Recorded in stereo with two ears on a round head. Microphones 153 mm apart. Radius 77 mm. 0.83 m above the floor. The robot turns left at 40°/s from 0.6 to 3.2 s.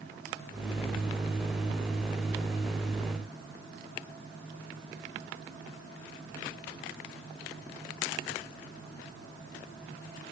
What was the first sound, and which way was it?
Only background noise.